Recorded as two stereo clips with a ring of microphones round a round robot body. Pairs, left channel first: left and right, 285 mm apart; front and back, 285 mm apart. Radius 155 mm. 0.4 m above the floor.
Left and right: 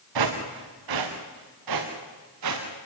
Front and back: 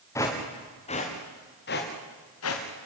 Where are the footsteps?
80° right, 3.5 m; by 2.9 s 45° right, 4 m.